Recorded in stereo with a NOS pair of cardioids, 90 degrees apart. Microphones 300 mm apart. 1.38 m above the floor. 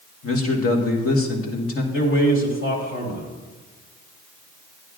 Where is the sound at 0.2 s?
50° left, 1.8 m.